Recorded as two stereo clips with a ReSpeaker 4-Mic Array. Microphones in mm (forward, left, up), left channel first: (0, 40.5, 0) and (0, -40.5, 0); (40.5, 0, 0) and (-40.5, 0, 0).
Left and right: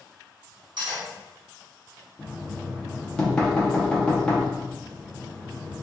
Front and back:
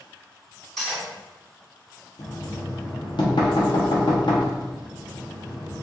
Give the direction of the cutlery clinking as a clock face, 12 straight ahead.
3 o'clock.